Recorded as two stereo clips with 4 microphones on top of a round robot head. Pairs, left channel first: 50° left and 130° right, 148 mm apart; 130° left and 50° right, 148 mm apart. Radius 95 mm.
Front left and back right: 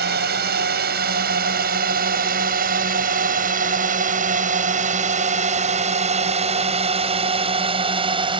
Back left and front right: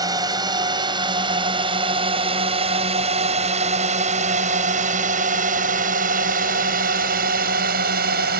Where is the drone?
115° right; by 8.4 s 75° right.